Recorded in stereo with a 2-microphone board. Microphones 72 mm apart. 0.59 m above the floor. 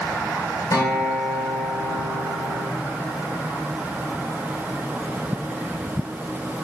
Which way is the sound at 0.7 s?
50° left (ahead or behind).